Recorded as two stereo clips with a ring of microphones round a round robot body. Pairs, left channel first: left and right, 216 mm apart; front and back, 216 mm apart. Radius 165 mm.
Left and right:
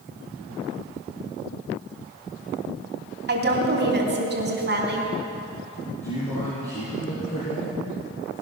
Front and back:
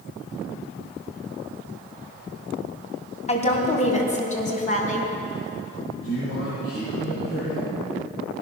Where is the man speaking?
30° left, 7 m.